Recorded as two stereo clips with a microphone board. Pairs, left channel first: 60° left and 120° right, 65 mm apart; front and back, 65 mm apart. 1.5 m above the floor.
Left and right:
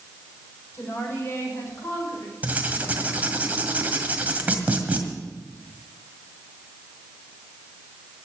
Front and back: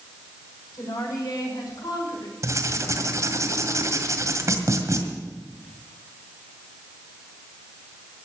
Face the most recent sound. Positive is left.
turn(degrees=180)